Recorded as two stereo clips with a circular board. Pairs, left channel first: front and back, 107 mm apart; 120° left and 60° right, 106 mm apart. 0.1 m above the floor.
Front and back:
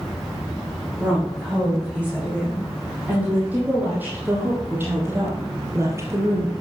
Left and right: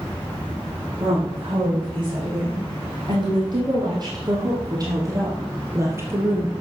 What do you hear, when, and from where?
1.0 s a woman speaking: 100° right, 7.5 m; by 6.5 s 130° right, 2.5 m